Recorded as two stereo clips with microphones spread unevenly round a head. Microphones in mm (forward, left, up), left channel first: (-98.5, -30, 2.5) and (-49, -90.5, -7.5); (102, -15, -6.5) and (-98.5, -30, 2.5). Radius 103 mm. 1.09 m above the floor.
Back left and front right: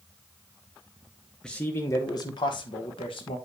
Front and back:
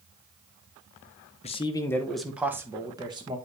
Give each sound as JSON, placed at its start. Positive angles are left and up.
{"t": 1.4, "sound": "a man speaking", "azimuth_deg": 40, "distance_m": 0.7}